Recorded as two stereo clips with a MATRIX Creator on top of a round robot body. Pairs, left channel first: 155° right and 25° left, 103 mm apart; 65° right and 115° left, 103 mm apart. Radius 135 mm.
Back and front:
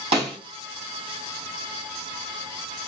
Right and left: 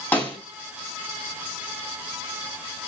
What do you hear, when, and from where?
0.1 s a snare drum: 5° left, 3 m